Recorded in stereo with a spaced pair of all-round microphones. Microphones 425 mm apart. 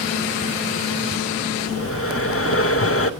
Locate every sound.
1.7 s breathing: 30° left (ahead or behind), 0.7 m